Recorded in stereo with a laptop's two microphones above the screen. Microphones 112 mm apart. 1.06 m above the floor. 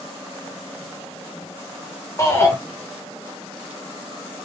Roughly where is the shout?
Left.